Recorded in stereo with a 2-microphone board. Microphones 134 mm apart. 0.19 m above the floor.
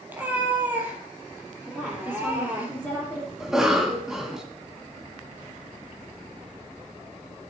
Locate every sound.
0.1 s a cat meowing: 15° right (ahead or behind), 2.5 m
1.7 s a woman speaking: centre (ahead or behind), 5 m
3.4 s a cough: 5° right (ahead or behind), 1.4 m